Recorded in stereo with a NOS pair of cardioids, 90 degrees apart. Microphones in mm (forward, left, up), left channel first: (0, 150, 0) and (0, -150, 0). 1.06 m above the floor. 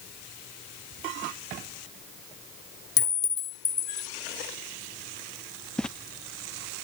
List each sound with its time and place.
3.0 s a clink: 35° left
5.8 s footsteps: straight ahead